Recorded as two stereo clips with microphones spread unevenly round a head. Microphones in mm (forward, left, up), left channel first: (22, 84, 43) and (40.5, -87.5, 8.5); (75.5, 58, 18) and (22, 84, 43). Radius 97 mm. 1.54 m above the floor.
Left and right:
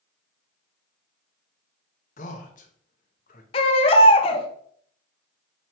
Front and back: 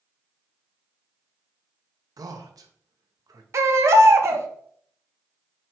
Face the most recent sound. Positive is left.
turn(degrees=150)